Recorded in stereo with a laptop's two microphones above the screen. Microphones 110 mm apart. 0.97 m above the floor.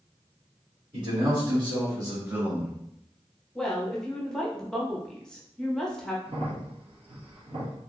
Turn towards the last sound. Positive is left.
turn(degrees=-60)  # may be behind; listen again after turning